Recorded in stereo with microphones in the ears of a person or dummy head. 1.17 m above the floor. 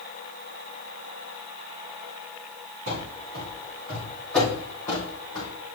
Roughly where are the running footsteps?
Right.